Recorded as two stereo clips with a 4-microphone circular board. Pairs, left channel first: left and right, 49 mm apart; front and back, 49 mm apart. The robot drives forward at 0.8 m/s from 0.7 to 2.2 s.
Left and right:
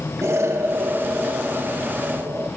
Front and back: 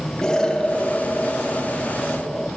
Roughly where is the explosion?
Right.